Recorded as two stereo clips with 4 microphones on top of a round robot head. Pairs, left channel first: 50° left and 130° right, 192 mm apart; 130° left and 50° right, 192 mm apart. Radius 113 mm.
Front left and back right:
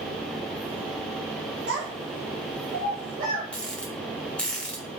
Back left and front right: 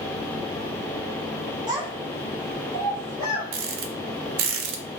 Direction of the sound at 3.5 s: 35° right.